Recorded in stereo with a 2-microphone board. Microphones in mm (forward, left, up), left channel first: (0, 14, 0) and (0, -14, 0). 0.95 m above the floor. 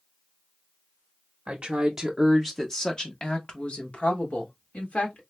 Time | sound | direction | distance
1.5 | a woman speaking | 40° right (ahead or behind) | 0.8 m